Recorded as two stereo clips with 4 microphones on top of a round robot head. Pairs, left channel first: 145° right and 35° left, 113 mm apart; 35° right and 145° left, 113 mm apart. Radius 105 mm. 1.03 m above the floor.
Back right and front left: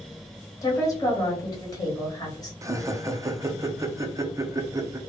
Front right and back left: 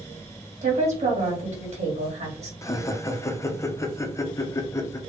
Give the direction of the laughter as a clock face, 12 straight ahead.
12 o'clock.